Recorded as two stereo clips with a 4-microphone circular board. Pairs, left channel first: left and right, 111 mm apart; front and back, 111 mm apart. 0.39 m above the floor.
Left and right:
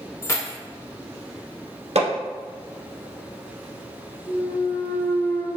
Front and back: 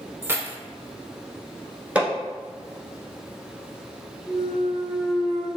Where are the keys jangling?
130° left, 0.6 m.